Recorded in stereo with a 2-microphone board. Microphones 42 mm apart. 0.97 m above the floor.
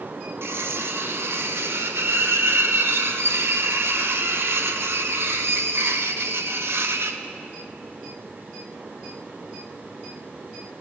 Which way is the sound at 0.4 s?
70° right (ahead or behind).